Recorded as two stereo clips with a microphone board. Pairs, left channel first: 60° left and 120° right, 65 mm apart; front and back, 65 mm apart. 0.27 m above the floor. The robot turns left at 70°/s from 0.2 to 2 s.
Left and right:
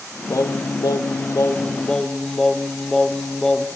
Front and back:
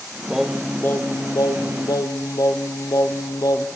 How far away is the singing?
About 1.9 m.